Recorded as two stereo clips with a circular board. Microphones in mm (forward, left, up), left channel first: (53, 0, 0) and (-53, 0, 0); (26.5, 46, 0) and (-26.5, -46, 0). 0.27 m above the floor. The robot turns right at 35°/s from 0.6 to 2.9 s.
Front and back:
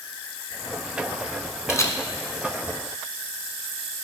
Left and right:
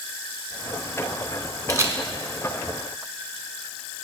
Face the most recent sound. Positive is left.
turn(degrees=-20)